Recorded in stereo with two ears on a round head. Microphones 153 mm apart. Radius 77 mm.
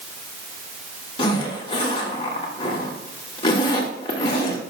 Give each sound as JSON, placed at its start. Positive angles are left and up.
{"t": 1.2, "sound": "a zipper", "side_deg": 30, "distance_m": 2.0}